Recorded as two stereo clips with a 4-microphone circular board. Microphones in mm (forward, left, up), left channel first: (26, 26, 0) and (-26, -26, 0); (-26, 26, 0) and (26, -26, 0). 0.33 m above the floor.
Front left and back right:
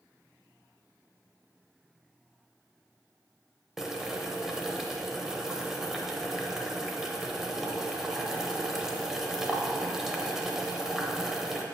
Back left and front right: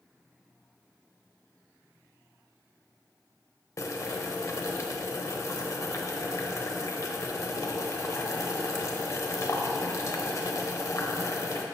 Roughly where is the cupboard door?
I don't hear a cupboard door.